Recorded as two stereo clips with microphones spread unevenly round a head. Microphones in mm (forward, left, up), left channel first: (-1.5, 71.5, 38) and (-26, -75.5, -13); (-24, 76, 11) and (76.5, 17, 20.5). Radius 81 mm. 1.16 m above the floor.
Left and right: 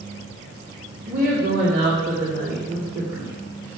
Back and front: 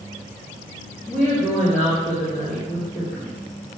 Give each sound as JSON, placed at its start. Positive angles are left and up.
{"t": 1.1, "sound": "a woman speaking", "azimuth_deg": -125, "distance_m": 2.5}